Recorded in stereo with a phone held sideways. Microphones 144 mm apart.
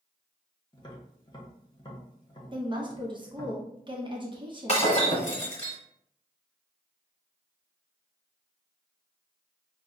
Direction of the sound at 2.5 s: 30° right (ahead or behind).